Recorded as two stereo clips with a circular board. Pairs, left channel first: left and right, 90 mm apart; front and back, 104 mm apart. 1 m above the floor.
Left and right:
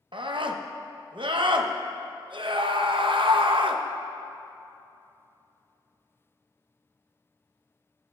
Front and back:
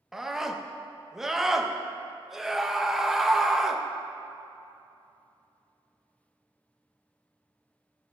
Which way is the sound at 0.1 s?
95° right.